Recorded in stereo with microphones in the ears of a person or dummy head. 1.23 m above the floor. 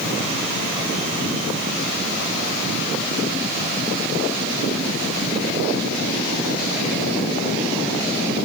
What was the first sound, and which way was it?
Only background noise.